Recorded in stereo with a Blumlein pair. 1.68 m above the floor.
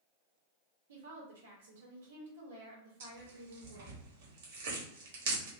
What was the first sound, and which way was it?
A woman speaking, 65° right.